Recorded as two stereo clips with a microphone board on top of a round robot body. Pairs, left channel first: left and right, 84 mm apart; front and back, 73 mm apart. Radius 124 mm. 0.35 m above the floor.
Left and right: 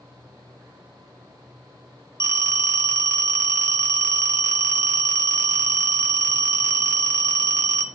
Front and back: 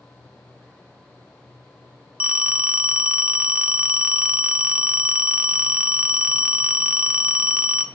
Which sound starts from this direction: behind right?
A phone ringing, at 2.2 s.